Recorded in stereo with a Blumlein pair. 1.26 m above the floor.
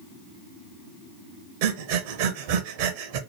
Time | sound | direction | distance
1.6 | breathing | 50° right | 0.5 m